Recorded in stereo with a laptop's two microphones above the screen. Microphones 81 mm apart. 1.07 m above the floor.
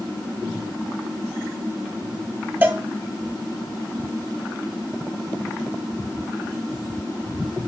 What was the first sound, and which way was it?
A cowbell, 25° right (ahead or behind).